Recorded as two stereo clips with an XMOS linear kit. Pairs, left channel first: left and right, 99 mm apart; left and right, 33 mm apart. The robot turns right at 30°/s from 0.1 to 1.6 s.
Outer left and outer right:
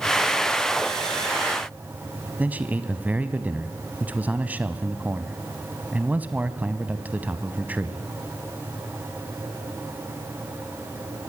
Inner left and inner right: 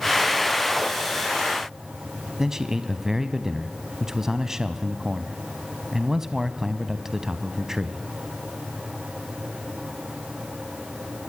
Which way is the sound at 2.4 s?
15° right (ahead or behind).